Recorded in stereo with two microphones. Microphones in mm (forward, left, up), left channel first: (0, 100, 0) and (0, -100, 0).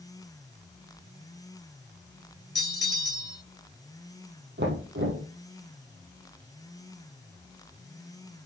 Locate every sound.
2.5 s a bell: 60° left (ahead or behind), 0.5 m
4.6 s knocking: 70° right (ahead or behind), 3 m